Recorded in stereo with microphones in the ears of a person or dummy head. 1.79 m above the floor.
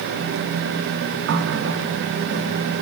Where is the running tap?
70° right (ahead or behind), 2.5 m.